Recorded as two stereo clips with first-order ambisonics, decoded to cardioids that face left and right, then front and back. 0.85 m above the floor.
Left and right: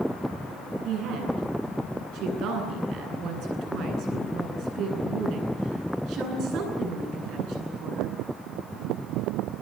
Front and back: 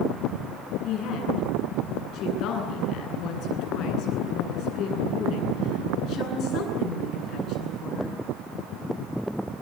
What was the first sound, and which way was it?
A woman speaking, 45° right.